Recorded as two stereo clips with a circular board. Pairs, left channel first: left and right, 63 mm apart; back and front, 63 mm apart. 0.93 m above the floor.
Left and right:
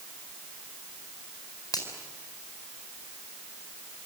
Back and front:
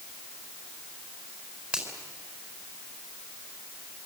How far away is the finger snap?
About 4.5 m.